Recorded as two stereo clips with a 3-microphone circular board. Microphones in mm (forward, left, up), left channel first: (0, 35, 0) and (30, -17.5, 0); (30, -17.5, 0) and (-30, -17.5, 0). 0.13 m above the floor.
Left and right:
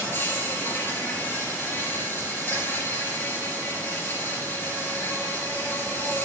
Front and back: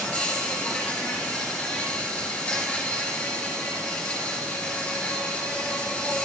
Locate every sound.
0.0 s an insect: 70° left, 2.5 m